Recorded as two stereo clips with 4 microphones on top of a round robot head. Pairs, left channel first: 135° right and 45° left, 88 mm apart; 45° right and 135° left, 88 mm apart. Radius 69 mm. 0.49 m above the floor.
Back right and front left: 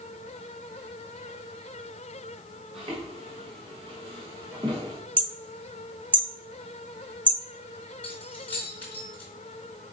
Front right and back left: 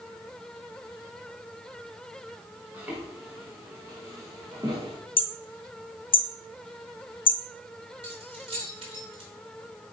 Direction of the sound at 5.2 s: 30° right.